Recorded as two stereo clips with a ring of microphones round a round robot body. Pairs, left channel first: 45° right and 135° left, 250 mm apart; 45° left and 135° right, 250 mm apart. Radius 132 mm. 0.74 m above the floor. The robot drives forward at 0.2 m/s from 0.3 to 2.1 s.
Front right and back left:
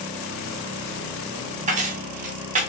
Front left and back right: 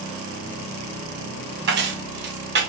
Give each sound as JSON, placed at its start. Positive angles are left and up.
{"t": 1.7, "sound": "keys jangling", "azimuth_deg": -170, "distance_m": 0.7}